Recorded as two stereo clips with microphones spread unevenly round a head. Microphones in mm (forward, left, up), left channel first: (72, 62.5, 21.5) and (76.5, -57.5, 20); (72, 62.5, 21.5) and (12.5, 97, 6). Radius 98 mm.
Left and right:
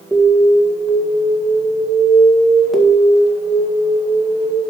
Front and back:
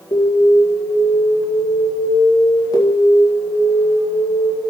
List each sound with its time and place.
0.1 s an alarm: straight ahead, 2 m